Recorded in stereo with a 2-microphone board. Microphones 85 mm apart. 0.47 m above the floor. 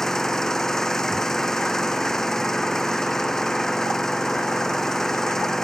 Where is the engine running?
5° left (ahead or behind).